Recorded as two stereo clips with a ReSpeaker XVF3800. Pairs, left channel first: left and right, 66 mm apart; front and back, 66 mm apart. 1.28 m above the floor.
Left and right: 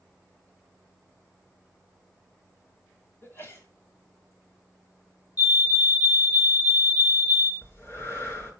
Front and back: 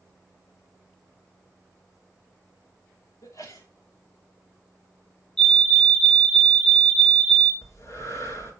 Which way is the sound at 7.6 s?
40° left.